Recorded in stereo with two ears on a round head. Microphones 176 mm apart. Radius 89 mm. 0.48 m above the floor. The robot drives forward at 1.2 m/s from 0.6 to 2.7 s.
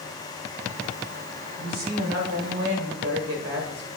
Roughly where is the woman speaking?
Right.